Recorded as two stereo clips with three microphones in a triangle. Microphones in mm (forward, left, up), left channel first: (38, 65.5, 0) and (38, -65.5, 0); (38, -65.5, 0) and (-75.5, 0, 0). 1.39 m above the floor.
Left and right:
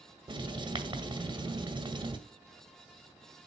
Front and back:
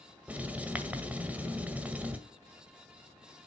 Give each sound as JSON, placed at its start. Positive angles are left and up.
{"t": 0.3, "sound": "writing", "azimuth_deg": -135, "distance_m": 1.8}